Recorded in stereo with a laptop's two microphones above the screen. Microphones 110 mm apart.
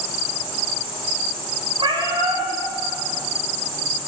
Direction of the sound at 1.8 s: 50° right (ahead or behind).